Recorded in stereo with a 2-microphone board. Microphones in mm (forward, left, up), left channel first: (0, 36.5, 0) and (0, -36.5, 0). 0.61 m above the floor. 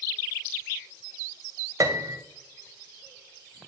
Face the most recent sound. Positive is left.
turn(degrees=-50)  # may be behind; listen again after turning